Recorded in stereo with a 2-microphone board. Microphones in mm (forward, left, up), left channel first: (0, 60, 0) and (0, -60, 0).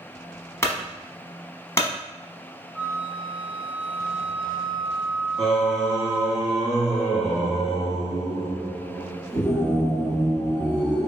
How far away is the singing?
About 1.3 m.